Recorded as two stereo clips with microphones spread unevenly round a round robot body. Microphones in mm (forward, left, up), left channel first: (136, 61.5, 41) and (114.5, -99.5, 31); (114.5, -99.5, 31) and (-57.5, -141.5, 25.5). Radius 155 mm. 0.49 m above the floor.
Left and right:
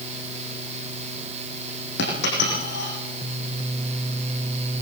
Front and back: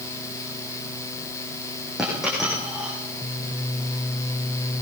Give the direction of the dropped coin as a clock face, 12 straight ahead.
9 o'clock.